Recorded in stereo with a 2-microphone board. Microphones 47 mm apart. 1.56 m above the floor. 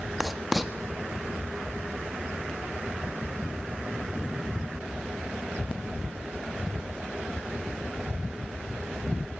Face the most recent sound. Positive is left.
turn(degrees=0)  # may be behind; listen again after turning